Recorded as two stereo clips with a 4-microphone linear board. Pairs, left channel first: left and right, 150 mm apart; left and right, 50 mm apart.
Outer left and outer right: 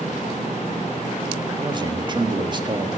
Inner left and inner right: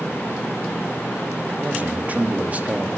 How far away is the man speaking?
About 1.6 m.